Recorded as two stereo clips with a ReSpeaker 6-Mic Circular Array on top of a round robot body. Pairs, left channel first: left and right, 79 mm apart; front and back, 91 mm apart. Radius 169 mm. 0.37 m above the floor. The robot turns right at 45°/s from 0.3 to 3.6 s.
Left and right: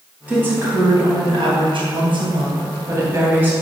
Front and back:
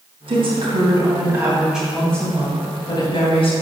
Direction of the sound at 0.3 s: 160° right.